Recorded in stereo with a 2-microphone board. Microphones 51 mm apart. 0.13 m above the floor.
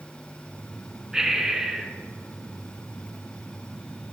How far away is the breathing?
About 0.8 m.